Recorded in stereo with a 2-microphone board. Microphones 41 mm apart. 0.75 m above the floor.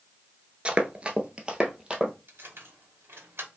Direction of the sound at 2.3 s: 70° right (ahead or behind).